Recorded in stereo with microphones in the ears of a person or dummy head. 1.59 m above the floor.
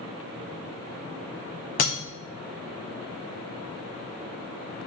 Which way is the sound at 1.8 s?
30° left (ahead or behind).